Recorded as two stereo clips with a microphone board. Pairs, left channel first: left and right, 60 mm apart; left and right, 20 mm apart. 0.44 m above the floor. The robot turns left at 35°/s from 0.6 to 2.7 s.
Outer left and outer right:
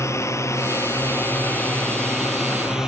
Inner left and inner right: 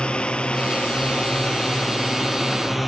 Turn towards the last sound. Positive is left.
turn(degrees=-10)  # may be behind; listen again after turning